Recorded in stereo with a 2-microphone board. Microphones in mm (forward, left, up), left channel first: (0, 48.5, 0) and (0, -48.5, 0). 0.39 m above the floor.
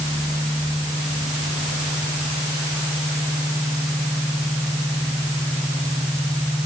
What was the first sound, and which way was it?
Only background noise.